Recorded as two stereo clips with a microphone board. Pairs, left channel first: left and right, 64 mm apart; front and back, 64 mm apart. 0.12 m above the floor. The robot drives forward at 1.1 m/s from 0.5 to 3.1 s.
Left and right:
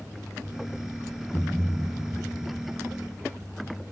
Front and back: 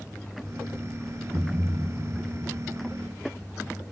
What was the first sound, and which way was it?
A thud, 165° left.